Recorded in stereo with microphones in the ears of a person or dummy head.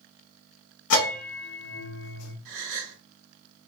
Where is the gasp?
80° right, 1.6 m.